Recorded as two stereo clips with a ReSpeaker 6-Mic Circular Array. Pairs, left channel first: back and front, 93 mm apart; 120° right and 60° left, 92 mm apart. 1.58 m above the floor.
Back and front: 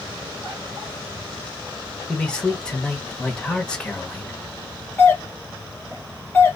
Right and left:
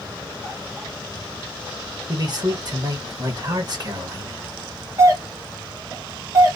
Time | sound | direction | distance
2.1 | a man speaking | 100° left | 1.6 m
5.0 | a doorbell | 115° left | 1.9 m